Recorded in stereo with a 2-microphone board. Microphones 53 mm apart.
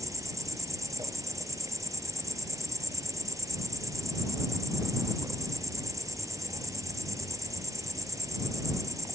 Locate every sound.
0.0 s an insect: 80° right